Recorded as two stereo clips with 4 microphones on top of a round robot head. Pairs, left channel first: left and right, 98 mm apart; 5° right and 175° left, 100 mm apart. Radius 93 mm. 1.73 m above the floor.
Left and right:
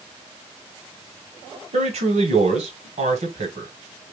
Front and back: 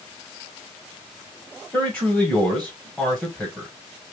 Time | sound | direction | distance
1.7 | a man speaking | 85° right | 1.6 m